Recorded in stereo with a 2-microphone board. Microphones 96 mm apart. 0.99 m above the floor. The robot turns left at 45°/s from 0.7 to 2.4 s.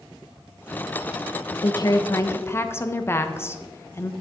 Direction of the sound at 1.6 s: 70° left.